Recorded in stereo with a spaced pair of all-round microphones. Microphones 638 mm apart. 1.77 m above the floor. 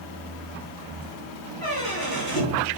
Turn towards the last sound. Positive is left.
turn(degrees=35)  # may be behind; listen again after turning